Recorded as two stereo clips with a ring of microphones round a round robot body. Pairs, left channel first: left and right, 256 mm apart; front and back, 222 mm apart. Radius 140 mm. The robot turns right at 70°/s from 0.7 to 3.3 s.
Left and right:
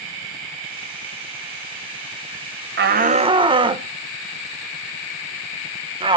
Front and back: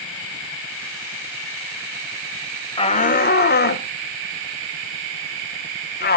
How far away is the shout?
About 1.3 m.